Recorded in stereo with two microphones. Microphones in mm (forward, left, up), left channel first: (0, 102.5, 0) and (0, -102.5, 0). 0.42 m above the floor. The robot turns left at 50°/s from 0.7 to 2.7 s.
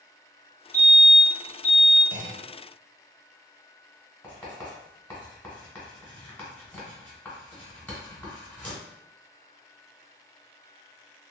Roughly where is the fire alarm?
Centre.